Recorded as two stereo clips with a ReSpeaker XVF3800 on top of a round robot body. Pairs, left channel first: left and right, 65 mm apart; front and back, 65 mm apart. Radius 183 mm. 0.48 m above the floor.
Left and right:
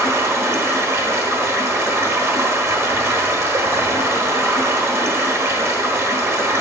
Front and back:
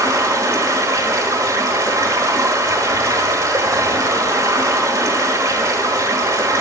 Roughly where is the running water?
Behind right.